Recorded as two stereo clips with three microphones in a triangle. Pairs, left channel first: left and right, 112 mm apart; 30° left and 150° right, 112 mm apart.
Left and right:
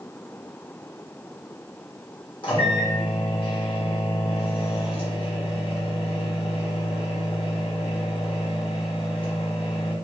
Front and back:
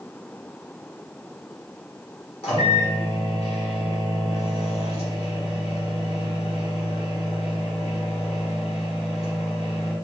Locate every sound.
2.4 s a microwave: 55° left, 1.4 m